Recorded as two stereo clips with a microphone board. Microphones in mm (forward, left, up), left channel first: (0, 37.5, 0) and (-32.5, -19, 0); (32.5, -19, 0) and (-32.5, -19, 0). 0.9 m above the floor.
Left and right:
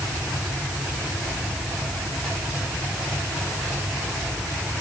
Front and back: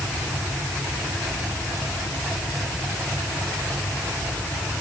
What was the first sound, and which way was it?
Only background noise.